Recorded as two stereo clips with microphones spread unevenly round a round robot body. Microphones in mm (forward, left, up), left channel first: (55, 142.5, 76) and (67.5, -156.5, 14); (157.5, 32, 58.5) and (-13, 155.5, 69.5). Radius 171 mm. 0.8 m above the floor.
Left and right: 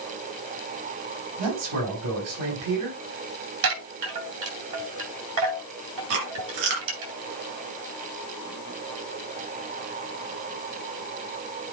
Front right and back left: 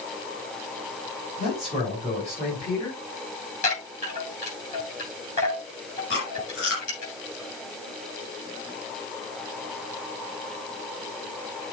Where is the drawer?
I don't hear a drawer.